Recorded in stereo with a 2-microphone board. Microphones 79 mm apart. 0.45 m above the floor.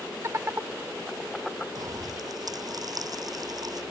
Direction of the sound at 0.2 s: 40° right (ahead or behind).